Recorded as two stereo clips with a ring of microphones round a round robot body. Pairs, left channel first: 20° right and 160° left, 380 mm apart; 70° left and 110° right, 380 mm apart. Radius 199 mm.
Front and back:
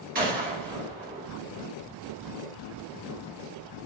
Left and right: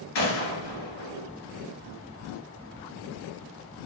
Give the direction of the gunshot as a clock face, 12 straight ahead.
9 o'clock.